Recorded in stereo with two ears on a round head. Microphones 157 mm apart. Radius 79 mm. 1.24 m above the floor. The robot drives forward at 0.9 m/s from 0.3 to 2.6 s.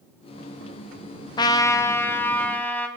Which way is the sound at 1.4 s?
25° left (ahead or behind).